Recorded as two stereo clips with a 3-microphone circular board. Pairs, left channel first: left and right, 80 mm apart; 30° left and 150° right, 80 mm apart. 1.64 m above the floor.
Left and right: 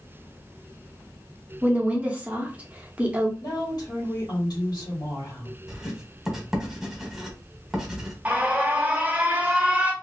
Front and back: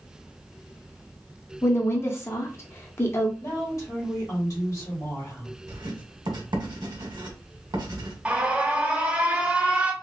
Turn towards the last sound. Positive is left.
turn(degrees=-110)